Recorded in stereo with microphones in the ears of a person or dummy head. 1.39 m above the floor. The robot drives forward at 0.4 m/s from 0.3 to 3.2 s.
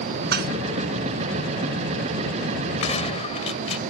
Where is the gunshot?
35° left (ahead or behind).